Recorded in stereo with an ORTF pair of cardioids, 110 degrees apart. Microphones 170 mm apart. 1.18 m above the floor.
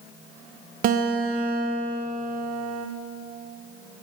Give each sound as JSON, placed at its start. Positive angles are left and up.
{"t": 0.8, "sound": "a guitar", "azimuth_deg": -55, "distance_m": 0.7}